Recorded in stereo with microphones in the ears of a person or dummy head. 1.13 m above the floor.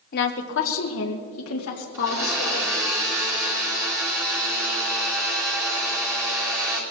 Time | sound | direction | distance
0.1 | a woman speaking | 50° left (ahead or behind) | 0.8 m
1.9 | a blender | 10° right (ahead or behind) | 2.5 m